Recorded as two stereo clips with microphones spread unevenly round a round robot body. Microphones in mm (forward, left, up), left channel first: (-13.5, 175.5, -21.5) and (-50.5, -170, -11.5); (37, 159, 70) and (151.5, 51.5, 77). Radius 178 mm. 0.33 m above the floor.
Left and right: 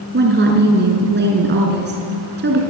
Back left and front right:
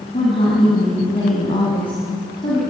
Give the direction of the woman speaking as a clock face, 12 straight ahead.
5 o'clock.